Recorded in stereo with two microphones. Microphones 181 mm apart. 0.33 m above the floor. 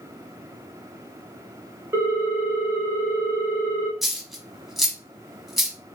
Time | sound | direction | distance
1.9 | a ringtone | 15° right (ahead or behind) | 0.8 m
4.0 | a dropped coin | centre (ahead or behind) | 0.8 m